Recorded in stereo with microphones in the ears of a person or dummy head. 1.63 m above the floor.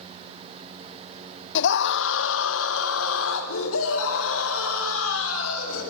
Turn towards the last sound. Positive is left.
turn(degrees=80)